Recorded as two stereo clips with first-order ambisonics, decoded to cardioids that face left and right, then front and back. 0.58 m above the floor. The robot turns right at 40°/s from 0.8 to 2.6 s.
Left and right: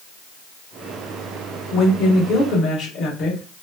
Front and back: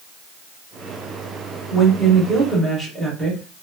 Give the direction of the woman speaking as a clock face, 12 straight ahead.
10 o'clock.